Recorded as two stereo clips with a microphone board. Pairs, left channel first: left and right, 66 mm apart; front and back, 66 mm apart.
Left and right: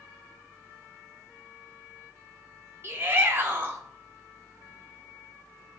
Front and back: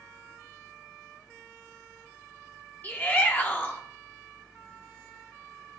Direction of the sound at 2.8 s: 50° right.